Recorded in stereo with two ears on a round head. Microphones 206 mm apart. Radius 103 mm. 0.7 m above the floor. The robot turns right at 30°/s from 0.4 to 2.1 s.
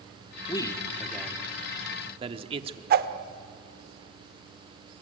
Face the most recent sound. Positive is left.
turn(degrees=-40)  # may be behind; listen again after turning